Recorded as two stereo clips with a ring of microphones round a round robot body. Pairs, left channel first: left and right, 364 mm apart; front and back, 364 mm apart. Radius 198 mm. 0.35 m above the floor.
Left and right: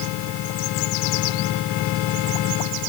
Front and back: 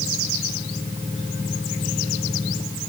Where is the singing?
I don't hear singing.